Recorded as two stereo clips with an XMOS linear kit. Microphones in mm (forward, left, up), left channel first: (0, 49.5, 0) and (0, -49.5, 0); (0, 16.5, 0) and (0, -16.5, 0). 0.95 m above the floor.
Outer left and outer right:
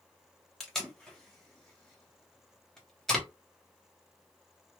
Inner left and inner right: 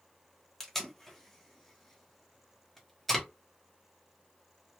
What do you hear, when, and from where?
0.6 s tape being pulled: 5° left (ahead or behind), 1.1 m